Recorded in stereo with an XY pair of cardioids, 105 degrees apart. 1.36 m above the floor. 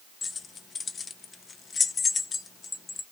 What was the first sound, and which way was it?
Keys jangling, 40° left.